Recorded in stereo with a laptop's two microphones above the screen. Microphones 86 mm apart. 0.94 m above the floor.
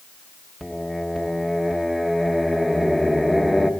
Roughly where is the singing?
Centre.